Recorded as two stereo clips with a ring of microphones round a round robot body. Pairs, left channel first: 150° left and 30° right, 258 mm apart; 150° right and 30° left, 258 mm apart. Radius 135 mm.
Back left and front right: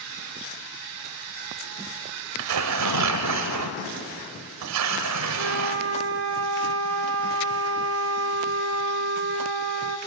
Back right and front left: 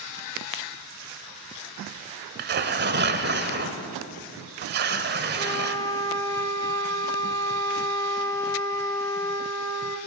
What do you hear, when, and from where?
2.4 s tearing paper: 20° right, 1.4 m
5.4 s a flute: 70° right, 1.4 m